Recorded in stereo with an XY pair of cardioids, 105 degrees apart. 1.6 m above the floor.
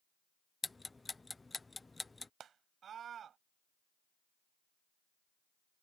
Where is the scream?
55° right.